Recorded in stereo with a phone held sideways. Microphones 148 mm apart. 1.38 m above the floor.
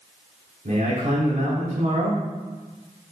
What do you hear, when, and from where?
0.7 s a man speaking: 60° right (ahead or behind), 3.5 m